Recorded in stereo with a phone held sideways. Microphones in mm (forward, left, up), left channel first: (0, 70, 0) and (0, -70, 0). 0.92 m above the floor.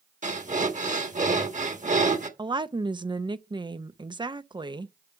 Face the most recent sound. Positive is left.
turn(degrees=-35)  # may be behind; listen again after turning